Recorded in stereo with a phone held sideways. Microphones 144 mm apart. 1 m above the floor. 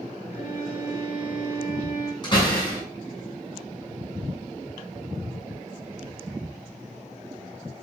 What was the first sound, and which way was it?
A violin, 60° left (ahead or behind).